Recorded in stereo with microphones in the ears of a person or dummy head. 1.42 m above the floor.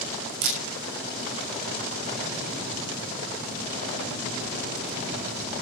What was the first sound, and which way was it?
A camera shutter, 75° right (ahead or behind).